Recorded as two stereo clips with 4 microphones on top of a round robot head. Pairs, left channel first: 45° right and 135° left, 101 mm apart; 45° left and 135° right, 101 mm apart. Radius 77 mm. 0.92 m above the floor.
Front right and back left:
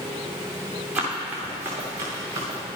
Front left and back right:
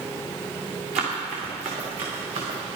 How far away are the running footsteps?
About 4 m.